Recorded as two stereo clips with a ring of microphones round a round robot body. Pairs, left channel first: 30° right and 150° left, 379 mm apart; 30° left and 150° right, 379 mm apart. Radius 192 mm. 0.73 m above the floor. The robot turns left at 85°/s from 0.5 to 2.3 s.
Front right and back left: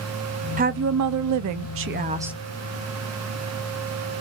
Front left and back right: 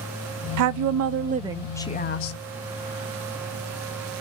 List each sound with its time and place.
0.6 s a woman speaking: 150° right, 0.5 m; by 2.4 s 65° left, 0.5 m